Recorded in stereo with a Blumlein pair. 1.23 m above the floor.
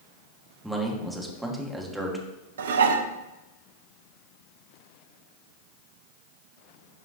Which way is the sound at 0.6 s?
5° right.